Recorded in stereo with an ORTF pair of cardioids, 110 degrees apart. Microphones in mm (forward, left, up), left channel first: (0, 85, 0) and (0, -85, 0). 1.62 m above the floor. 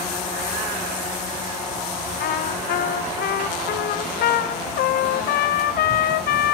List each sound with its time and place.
2.2 s a trumpet: 70° left, 1.0 m